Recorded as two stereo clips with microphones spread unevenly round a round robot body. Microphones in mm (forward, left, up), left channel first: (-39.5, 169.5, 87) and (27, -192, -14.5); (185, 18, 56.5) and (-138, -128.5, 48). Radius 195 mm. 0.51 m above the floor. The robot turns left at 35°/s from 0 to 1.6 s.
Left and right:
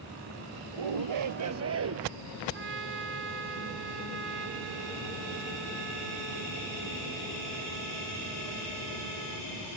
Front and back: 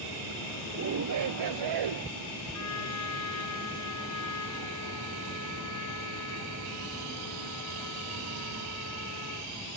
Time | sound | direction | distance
0.7 | a shout | 100° right | ?
2.5 | a trumpet | 20° right | ?